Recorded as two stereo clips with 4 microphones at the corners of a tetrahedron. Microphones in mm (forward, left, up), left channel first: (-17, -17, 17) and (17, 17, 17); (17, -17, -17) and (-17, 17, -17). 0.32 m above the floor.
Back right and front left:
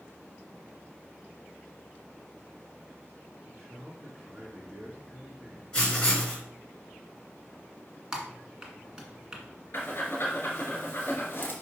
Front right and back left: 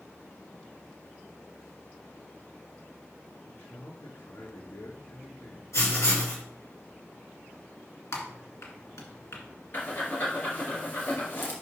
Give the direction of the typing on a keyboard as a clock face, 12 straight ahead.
1 o'clock.